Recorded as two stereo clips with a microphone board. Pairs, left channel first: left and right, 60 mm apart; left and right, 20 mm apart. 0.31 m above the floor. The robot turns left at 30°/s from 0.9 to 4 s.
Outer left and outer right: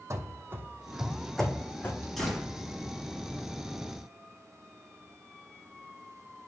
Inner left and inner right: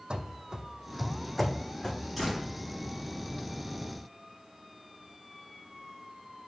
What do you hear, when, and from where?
0.1 s running footsteps: 55° right (ahead or behind), 0.8 m; by 2.1 s 45° left (ahead or behind), 1.4 m
2.2 s a door slam: 5° left (ahead or behind), 3.5 m; by 2.5 s 15° left (ahead or behind), 3.5 m